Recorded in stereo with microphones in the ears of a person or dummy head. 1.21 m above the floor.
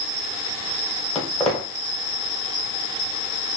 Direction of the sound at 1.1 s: 5° left (ahead or behind).